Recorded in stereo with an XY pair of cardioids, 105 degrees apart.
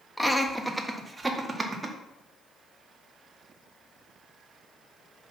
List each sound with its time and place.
0.2 s laughter: straight ahead, 1.4 m; by 1.9 s 30° right, 2 m